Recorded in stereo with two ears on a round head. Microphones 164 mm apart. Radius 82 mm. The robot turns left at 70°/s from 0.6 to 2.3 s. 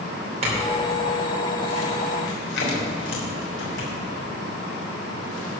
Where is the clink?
40° right (ahead or behind), 3.5 m; by 3.9 s 80° left, 3.5 m.